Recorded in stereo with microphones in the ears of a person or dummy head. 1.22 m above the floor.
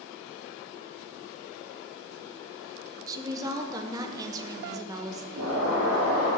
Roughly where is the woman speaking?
Centre.